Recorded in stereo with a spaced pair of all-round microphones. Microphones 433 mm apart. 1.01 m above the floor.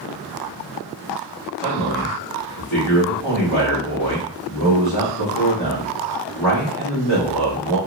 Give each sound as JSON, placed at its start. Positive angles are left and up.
{"t": 1.6, "sound": "a man speaking", "side_deg": 55, "distance_m": 1.5}